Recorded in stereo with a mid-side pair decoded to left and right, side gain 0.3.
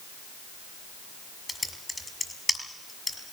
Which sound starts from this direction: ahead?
Typing on a keyboard, at 1.5 s.